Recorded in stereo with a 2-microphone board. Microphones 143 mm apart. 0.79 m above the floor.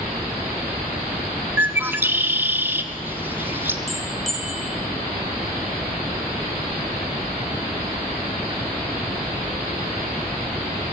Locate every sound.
1.6 s a bird: 15° right (ahead or behind), 1.3 m
3.9 s a bell: centre (ahead or behind), 3 m